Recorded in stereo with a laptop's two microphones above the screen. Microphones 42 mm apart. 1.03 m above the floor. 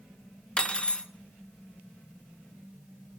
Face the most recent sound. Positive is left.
turn(degrees=25)  # may be behind; listen again after turning